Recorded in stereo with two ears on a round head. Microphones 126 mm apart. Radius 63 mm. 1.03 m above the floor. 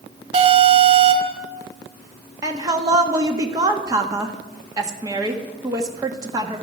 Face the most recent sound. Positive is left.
turn(degrees=-25)  # may be behind; listen again after turning